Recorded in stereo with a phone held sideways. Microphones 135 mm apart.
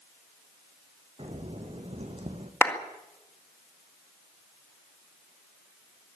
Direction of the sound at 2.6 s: 20° left (ahead or behind).